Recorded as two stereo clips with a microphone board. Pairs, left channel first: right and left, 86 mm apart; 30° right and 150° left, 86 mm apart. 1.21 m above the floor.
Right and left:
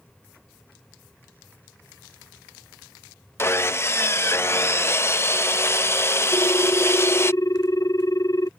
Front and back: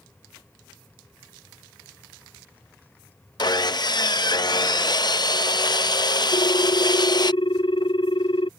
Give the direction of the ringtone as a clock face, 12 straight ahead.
1 o'clock.